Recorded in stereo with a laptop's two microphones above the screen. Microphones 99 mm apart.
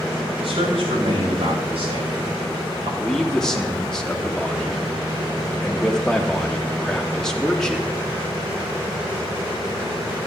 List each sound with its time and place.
0.4 s a man speaking: 75° right (ahead or behind), 6.5 m
3.0 s a man speaking: 5° left (ahead or behind), 2.5 m